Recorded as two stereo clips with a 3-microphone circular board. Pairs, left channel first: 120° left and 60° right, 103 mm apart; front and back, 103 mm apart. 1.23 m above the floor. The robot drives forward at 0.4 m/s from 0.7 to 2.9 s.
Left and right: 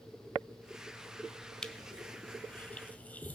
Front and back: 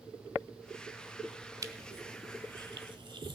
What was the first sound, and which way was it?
Crushing, 160° right.